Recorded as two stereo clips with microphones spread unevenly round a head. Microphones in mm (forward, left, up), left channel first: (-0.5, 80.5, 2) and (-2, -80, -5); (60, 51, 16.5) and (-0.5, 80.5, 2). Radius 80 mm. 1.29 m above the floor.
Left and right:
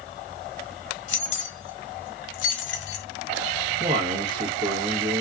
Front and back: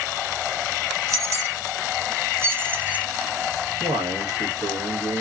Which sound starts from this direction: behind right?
A man speaking, at 3.8 s.